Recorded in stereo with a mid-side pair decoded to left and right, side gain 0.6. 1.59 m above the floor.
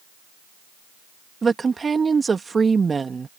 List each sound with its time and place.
1.4 s a woman speaking: 25° right